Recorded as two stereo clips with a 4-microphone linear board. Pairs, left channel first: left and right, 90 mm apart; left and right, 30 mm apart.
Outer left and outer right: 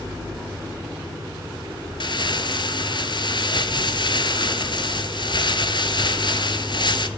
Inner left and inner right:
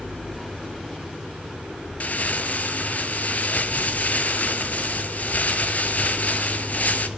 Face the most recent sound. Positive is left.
turn(degrees=60)  # may be behind; listen again after turning